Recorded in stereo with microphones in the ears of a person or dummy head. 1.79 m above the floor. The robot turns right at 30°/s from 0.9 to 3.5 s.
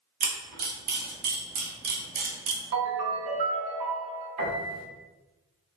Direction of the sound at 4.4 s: 40° right (ahead or behind).